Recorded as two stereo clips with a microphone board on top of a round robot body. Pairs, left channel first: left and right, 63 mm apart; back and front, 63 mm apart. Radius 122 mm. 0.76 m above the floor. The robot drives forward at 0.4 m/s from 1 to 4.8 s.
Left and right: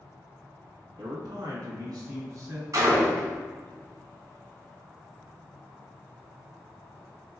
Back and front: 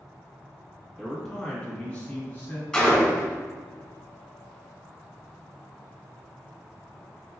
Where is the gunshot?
105° right, 1.8 m; by 3.3 s 115° right, 1.9 m.